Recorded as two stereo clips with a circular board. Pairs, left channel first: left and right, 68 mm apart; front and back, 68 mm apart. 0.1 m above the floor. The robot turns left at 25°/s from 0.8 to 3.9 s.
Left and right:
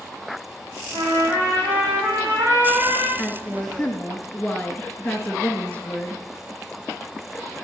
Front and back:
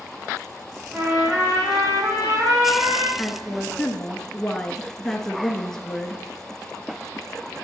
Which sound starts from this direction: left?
A woman speaking, at 3.2 s.